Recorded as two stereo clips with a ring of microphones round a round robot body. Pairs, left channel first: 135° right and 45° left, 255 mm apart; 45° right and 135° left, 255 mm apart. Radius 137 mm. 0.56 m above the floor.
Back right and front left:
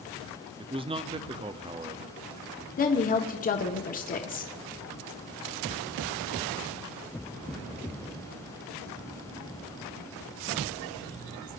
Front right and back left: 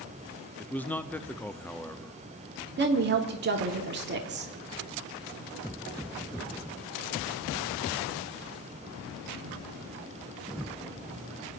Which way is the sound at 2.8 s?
175° left.